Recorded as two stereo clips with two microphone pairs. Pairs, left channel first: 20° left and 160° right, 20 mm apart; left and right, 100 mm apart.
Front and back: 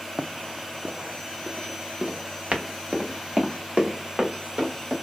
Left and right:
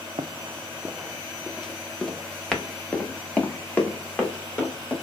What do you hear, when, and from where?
0.2 s running footsteps: 115° right, 0.5 m; by 4.9 s 160° left, 2.5 m